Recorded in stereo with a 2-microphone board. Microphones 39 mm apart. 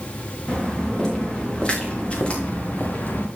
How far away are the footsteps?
About 5 m.